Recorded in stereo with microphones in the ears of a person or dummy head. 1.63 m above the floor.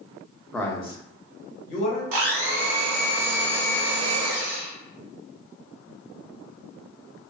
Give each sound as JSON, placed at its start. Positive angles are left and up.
{"t": 0.5, "sound": "a man speaking", "side_deg": 0, "distance_m": 0.5}
{"t": 2.1, "sound": "a blender", "side_deg": -50, "distance_m": 0.6}